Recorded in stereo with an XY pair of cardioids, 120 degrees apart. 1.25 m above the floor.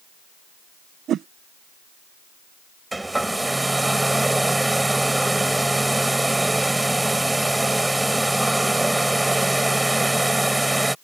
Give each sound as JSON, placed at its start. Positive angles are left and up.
{"t": 1.1, "sound": "a whoosh", "azimuth_deg": -55}
{"t": 2.9, "sound": "a hair dryer", "azimuth_deg": -10}